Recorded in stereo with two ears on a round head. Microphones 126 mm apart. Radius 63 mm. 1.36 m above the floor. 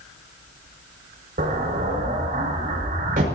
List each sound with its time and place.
1.4 s an explosion: 65° right (ahead or behind), 5.5 m